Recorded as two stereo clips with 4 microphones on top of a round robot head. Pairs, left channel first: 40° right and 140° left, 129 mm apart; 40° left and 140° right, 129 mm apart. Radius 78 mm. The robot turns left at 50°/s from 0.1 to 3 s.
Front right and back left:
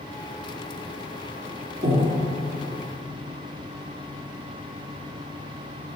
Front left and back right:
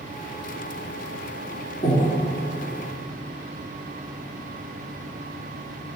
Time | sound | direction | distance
1.8 | breathing | 95° left | 1.3 m